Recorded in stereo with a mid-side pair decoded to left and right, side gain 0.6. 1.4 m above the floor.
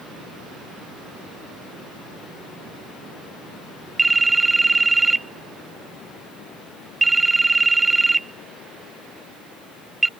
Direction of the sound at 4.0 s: 15° right.